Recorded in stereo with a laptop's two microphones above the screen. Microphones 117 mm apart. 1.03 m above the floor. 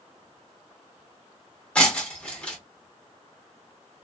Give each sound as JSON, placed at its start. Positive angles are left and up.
{"t": 1.8, "sound": "breaking glass", "side_deg": 10, "distance_m": 0.8}